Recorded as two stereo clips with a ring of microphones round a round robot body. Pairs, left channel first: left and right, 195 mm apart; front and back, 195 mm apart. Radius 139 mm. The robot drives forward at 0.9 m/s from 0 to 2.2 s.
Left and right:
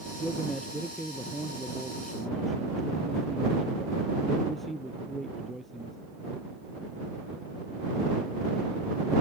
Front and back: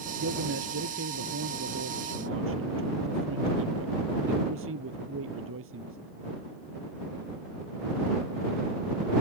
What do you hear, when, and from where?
0.2 s a man speaking: straight behind